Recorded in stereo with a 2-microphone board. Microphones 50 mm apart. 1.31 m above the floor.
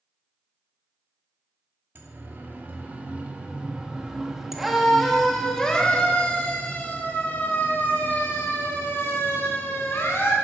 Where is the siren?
40° right (ahead or behind), 2.5 m; by 10.3 s 55° left (ahead or behind), 4 m.